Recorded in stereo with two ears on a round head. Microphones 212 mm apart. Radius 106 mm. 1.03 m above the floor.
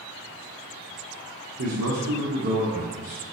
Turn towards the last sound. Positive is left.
turn(degrees=-35)  # may be behind; listen again after turning